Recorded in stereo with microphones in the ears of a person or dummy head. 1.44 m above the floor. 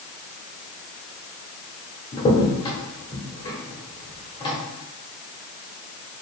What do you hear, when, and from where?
2.1 s a crack: 20° left (ahead or behind), 1.2 m